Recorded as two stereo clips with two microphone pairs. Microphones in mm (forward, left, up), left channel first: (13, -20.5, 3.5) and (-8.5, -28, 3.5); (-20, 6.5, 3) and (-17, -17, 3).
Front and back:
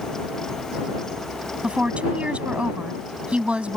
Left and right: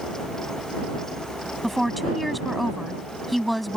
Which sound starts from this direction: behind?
A woman speaking, at 1.6 s.